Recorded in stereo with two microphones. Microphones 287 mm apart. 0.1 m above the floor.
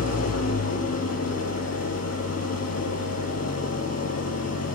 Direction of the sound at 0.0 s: 60° left (ahead or behind).